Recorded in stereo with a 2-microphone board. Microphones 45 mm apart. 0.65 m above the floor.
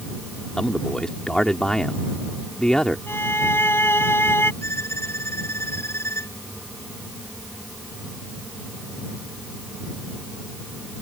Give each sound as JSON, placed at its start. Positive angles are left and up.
{"t": 0.6, "sound": "a man speaking", "side_deg": 20}
{"t": 3.1, "sound": "a violin", "side_deg": 60}
{"t": 4.6, "sound": "a violin", "side_deg": 80}